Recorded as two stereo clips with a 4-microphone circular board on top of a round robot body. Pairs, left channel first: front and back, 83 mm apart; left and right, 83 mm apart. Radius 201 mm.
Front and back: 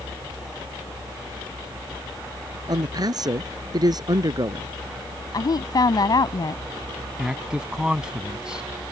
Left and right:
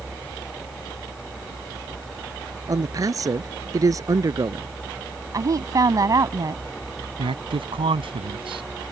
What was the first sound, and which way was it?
A man speaking, 140° right.